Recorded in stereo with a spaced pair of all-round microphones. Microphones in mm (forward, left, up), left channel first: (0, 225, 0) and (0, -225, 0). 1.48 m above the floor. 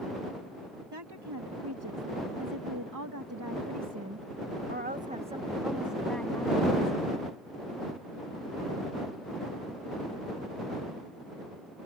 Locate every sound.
0.9 s a woman speaking: 60° right (ahead or behind); by 7.0 s 15° left (ahead or behind)